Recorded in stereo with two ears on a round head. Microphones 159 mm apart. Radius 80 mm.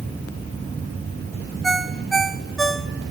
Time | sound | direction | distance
1.6 | a ringtone | centre (ahead or behind) | 0.9 m